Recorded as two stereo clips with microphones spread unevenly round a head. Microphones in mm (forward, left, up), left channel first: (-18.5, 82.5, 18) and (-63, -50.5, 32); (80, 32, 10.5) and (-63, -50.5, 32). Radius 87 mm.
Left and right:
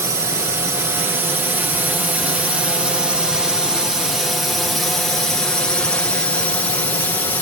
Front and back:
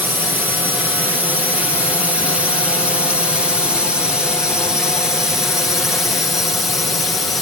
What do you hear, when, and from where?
0.0 s a drone: 70° right; by 7.4 s 95° left